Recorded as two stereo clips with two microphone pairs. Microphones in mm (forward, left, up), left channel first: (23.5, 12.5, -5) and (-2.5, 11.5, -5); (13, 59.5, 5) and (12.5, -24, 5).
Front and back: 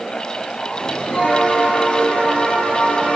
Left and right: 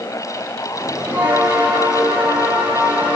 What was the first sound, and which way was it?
A bell, 20° right.